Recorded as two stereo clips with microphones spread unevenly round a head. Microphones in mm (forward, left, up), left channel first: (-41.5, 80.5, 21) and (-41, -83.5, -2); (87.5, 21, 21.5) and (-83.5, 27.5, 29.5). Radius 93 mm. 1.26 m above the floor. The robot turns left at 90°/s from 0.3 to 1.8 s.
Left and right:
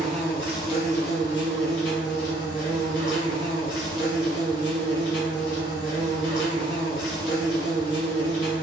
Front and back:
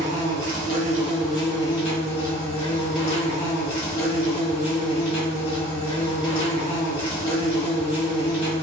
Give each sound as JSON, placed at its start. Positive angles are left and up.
{"t": 0.0, "sound": "an insect", "azimuth_deg": -175, "distance_m": 1.2}